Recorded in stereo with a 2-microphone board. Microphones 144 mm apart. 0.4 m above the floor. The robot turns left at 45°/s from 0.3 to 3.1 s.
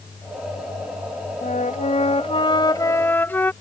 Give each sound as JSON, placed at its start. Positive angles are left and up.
{"t": 1.4, "sound": "a flute", "azimuth_deg": 90}